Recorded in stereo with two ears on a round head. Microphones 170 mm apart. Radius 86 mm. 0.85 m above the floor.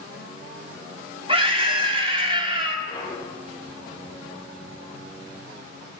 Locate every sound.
1.3 s a scream: 25° right (ahead or behind), 2 m
2.9 s a clunk: 25° left (ahead or behind), 4.5 m